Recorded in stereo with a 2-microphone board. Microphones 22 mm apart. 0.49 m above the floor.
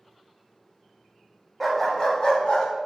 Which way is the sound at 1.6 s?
Centre (ahead or behind).